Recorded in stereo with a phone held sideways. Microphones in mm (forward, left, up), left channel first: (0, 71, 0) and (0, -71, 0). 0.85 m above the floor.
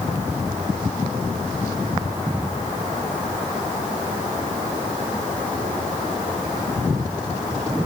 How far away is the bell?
I don't hear a bell.